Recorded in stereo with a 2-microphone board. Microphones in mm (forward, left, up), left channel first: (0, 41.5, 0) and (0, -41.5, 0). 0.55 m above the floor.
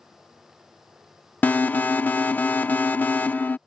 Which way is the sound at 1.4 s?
20° left (ahead or behind).